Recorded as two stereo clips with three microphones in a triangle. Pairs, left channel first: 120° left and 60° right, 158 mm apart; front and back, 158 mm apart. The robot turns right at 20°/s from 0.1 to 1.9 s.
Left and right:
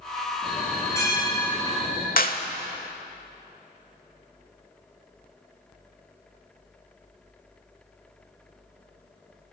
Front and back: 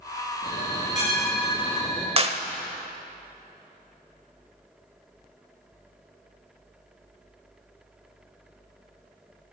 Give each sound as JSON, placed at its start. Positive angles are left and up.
{"t": 0.4, "sound": "a bell", "azimuth_deg": 35, "distance_m": 8.5}
{"t": 2.2, "sound": "a clap", "azimuth_deg": 135, "distance_m": 1.2}